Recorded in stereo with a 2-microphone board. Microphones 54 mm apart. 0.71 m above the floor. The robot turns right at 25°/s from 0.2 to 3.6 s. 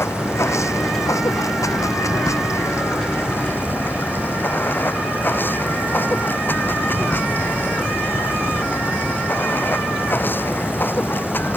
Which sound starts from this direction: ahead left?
Running water, at 0.0 s.